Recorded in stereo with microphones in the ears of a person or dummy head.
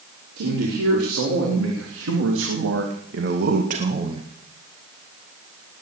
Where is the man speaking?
80° right, 5 m; by 4.3 s 30° right (ahead or behind), 1.6 m.